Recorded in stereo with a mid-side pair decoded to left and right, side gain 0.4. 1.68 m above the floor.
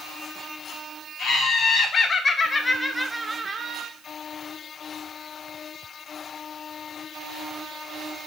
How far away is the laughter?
About 1.4 m.